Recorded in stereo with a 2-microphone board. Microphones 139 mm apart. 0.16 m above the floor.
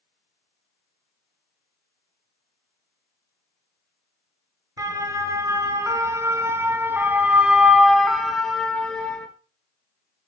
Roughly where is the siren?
Right.